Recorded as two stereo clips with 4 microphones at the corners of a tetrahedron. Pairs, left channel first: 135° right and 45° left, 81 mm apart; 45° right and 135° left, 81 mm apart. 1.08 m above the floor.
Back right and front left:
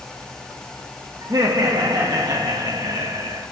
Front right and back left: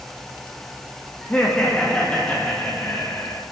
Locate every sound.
1.2 s laughter: 25° left, 2.0 m